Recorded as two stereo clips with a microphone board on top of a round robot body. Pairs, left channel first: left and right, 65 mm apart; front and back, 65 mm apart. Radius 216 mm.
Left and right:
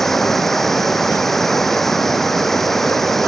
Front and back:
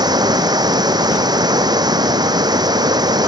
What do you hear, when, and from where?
0.0 s running water: 175° left